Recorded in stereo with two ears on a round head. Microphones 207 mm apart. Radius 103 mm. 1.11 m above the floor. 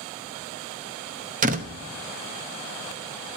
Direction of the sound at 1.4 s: 35° right (ahead or behind).